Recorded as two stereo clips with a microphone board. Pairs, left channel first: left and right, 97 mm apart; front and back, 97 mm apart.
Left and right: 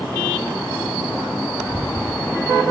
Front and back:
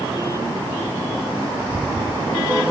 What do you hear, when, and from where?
1.6 s footsteps: 155° left, 1.2 m